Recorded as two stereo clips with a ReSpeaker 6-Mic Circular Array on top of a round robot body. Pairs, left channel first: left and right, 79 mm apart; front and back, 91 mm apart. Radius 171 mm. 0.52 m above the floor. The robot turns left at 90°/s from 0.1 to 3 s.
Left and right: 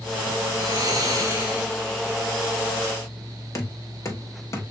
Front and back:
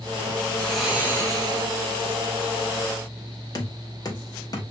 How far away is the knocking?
About 1.2 m.